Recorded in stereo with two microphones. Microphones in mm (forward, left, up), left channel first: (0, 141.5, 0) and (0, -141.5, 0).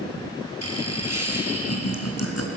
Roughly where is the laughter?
Left.